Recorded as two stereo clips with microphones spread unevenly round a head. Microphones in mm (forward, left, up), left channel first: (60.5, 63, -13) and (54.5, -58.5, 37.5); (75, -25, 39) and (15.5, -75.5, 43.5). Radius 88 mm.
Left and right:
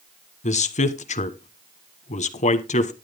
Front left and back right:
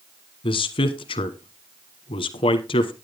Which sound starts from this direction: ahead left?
A man speaking, at 0.4 s.